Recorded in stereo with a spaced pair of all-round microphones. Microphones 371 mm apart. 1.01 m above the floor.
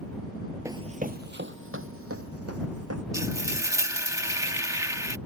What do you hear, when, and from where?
0.7 s running footsteps: 10° right (ahead or behind); by 3.0 s 40° right (ahead or behind)
3.1 s frying: 10° right (ahead or behind)